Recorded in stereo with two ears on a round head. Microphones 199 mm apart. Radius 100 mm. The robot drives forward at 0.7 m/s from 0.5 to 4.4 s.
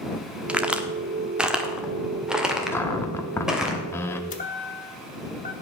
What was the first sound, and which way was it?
A crack, 5° right (ahead or behind).